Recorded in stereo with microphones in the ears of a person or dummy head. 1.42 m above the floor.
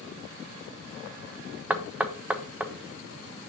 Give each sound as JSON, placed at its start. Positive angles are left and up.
{"t": 1.7, "sound": "knocking", "side_deg": -5, "distance_m": 0.7}